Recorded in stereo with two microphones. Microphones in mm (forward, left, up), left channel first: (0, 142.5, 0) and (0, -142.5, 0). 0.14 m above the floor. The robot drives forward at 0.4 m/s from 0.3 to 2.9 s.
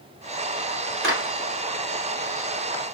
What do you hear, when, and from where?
1.0 s a clap: 45° right (ahead or behind), 2.5 m